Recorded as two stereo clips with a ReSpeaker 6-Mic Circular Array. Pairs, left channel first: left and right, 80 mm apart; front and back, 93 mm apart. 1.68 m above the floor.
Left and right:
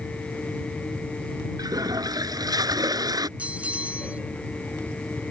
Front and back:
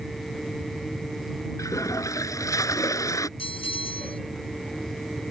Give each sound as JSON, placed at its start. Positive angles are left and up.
{"t": 1.6, "sound": "a toilet flushing", "azimuth_deg": -55}
{"t": 3.4, "sound": "a bell", "azimuth_deg": -15}